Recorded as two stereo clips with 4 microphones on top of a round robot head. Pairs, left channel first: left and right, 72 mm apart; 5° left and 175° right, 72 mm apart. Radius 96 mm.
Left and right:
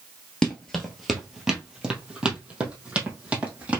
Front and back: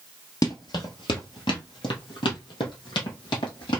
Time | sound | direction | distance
0.4 | running footsteps | 15° left | 1.0 m